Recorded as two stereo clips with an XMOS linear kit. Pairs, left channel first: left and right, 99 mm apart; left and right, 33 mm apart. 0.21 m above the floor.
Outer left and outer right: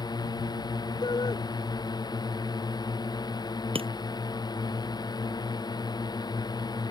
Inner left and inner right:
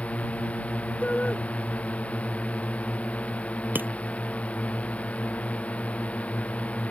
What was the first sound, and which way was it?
A drone, 45° left (ahead or behind).